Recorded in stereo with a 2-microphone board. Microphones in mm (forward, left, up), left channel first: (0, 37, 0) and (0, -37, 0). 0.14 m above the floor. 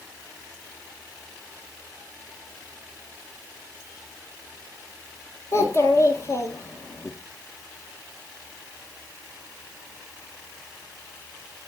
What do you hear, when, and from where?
5.5 s a child speaking: 40° left (ahead or behind), 1.9 m